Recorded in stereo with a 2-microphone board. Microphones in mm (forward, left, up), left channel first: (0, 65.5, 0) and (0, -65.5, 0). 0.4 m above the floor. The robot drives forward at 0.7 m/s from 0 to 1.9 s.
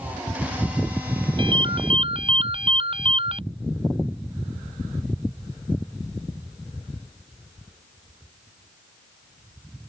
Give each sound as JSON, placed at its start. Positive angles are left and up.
{"t": 1.4, "sound": "a ringtone", "side_deg": -40}